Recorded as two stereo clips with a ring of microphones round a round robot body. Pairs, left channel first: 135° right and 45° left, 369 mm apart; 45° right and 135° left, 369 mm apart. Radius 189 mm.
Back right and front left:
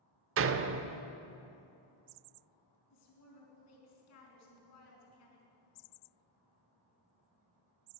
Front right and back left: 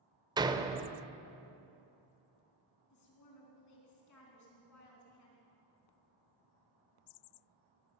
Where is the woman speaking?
90° right, 4 m.